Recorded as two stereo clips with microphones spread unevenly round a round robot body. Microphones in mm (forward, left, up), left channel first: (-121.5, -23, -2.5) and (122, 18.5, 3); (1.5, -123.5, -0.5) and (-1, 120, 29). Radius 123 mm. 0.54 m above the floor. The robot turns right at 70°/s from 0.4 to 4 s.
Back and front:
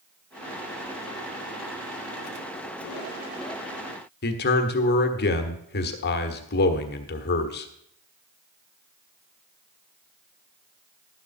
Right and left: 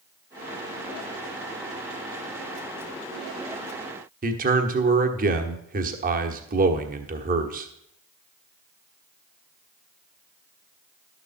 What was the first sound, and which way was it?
A man speaking, 145° left.